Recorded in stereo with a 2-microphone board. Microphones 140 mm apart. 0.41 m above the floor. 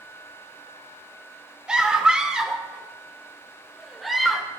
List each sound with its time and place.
1.7 s a scream: 5° right (ahead or behind), 1.0 m; by 4.5 s centre (ahead or behind), 1.3 m